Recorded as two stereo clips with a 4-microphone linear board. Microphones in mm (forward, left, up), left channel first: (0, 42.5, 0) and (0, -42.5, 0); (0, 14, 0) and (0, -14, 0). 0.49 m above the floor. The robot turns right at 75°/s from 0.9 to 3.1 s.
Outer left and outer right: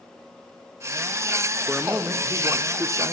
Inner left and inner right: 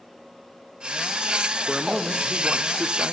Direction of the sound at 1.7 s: 175° left.